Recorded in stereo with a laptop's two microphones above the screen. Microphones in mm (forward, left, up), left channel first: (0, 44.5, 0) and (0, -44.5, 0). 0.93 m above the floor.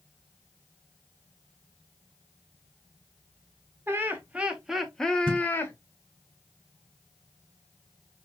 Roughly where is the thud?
Right.